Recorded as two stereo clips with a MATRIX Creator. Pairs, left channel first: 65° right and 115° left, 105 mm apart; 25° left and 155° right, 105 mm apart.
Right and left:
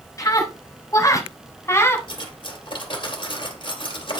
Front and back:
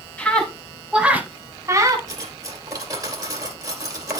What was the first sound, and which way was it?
A scream, 45° right.